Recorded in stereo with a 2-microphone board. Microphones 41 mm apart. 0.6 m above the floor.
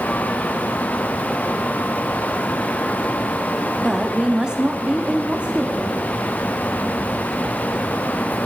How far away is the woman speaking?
About 1.1 m.